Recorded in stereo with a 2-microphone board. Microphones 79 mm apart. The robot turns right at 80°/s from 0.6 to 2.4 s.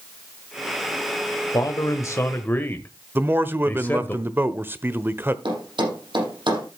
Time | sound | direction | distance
1.5 | a man speaking | 80° left | 1.1 m
3.1 | a man speaking | 30° right (ahead or behind) | 1.0 m
5.5 | a thud | 85° right | 6.5 m